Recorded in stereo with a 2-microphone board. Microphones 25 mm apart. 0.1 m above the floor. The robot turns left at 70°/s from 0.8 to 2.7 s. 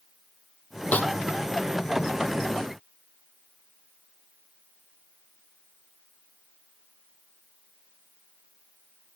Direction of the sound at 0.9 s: 60° left (ahead or behind).